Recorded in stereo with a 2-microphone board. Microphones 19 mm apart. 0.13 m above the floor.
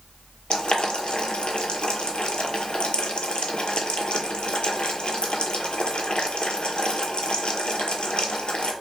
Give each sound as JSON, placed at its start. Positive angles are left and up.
{"t": 0.5, "sound": "boiling", "side_deg": 75, "distance_m": 0.6}